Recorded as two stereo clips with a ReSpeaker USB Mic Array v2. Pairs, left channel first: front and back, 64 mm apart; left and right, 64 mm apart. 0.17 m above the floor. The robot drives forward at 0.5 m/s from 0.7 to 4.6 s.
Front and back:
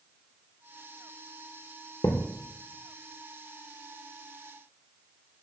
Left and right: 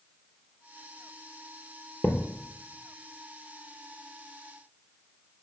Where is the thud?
30° left, 1.2 m.